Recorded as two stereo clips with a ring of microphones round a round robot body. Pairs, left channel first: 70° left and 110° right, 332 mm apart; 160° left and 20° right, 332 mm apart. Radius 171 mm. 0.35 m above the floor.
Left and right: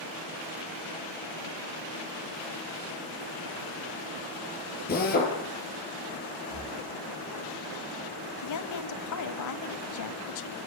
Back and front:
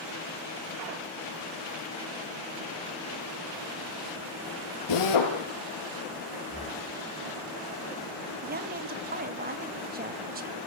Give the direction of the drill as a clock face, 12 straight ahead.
8 o'clock.